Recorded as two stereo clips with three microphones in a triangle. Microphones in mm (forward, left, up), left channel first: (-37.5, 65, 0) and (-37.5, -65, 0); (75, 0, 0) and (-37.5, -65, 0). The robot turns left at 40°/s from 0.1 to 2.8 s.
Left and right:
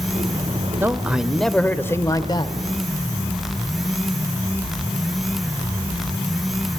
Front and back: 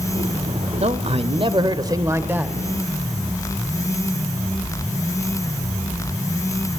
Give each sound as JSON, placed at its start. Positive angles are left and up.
{"t": 0.8, "sound": "a man speaking", "azimuth_deg": -160, "distance_m": 1.2}